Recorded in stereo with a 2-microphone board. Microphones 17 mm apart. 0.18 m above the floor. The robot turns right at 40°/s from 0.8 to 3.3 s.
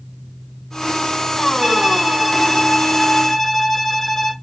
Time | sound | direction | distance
1.6 | a violin | 50° right | 2 m